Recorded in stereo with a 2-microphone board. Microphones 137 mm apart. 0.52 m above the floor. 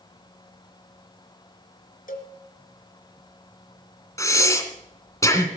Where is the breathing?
20° left (ahead or behind), 2 m.